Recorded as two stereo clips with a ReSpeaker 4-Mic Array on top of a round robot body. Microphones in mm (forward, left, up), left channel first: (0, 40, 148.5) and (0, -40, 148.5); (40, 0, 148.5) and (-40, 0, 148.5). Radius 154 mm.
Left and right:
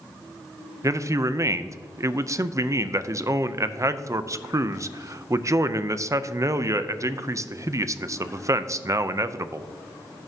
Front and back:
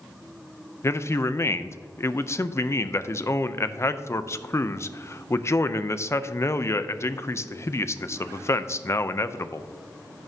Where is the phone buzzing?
No phone buzzing in this recording.